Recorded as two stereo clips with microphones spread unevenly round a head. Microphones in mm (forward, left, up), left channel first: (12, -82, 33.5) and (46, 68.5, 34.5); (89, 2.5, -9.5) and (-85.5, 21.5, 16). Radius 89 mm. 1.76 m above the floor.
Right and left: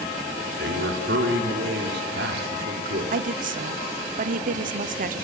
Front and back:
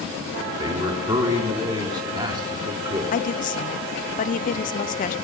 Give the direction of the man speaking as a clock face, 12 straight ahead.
8 o'clock.